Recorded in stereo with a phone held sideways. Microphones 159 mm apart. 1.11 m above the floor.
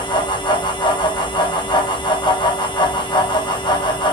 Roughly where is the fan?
Left.